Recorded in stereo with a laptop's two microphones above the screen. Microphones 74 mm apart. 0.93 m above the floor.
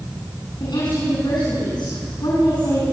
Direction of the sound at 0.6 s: 75° left (ahead or behind).